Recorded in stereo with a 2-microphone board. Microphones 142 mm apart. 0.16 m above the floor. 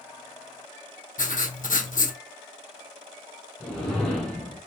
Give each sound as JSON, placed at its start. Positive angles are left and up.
{"t": 1.2, "sound": "writing", "side_deg": 75, "distance_m": 0.8}
{"t": 3.6, "sound": "a whoosh", "side_deg": 5, "distance_m": 1.4}